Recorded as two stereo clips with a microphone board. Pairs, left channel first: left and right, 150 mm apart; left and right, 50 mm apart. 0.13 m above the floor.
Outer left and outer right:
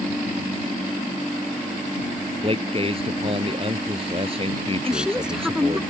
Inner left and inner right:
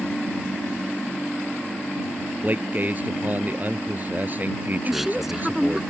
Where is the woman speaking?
5° right (ahead or behind).